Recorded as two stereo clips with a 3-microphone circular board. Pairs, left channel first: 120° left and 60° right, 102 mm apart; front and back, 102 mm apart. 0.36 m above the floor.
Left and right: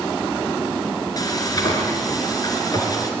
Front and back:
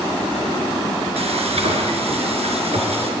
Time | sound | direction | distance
1.2 | frying | 170° left | 3.5 m